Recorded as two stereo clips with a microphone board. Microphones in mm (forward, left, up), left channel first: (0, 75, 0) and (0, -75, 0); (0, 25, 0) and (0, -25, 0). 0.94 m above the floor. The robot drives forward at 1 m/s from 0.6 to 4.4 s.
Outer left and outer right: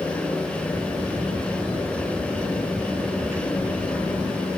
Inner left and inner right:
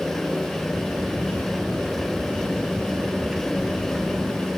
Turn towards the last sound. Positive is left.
No sound to turn to.